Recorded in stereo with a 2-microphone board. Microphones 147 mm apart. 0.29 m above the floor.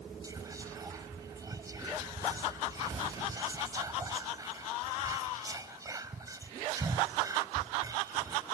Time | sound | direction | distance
0.2 | whispering | 25° right (ahead or behind) | 1.4 m